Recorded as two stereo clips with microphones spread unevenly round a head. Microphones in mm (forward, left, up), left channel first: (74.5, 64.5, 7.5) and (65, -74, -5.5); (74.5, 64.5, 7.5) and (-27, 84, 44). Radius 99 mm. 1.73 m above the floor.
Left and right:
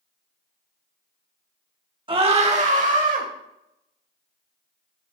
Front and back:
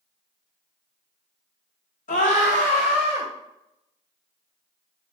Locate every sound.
2.1 s a scream: 40° right, 1.8 m; by 3.3 s 75° right, 2.5 m